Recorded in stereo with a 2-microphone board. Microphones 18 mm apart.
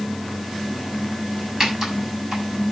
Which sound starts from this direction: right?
Typing on a keyboard, at 1.6 s.